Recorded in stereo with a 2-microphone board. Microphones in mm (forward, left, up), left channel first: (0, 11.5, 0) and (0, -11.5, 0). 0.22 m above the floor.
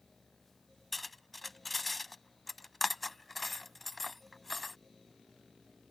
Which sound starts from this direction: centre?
Cutlery clinking, at 0.9 s.